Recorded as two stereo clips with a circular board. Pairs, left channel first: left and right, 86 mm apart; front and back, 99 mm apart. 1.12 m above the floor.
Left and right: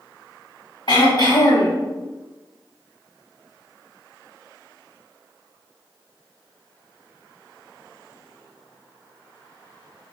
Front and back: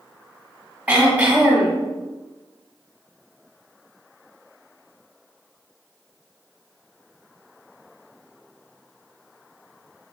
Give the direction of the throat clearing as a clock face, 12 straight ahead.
9 o'clock.